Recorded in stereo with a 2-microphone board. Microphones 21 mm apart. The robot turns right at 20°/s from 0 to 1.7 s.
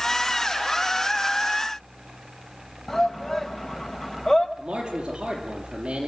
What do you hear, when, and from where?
2.9 s a shout: 25° left (ahead or behind), 1.5 m
4.6 s a man speaking: 40° right (ahead or behind), 5.5 m